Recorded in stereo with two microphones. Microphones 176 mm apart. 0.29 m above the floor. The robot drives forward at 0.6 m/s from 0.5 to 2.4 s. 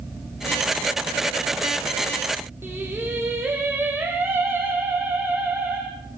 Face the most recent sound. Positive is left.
turn(degrees=-10)  # may be behind; listen again after turning